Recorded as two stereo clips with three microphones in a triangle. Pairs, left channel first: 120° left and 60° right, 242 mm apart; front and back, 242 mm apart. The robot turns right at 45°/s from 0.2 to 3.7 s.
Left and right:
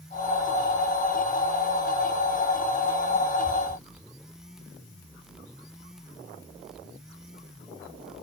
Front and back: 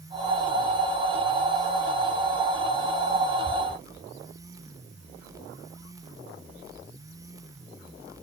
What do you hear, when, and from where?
Only background noise.